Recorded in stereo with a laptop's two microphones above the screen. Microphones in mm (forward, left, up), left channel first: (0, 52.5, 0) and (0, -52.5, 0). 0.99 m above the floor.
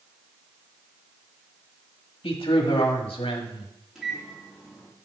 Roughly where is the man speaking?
Left.